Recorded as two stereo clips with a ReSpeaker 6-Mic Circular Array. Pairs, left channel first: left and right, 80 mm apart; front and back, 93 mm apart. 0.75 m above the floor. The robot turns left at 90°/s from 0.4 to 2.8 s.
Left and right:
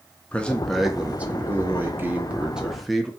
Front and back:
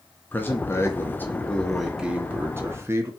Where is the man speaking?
35° left, 0.8 m; by 3.1 s straight behind, 0.8 m.